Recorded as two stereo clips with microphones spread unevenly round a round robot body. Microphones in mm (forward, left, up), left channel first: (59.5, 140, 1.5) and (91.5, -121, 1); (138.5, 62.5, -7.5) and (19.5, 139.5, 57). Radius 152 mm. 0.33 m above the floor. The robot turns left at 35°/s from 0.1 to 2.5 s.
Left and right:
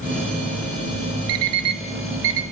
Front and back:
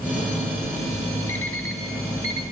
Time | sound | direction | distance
1.3 | an alarm clock | 85° right | 1.1 m